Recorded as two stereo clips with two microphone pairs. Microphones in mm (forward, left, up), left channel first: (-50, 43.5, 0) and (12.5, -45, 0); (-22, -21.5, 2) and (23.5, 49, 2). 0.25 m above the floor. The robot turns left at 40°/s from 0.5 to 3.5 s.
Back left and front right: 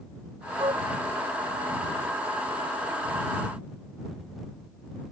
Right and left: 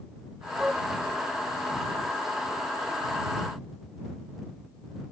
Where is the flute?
20° right; by 0.8 s 30° right.